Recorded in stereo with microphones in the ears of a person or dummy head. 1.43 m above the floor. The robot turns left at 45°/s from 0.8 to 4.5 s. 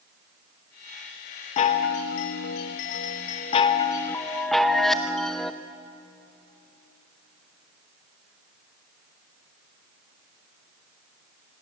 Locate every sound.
1.6 s a chime: 135° left, 0.9 m; by 5.5 s 5° left, 0.9 m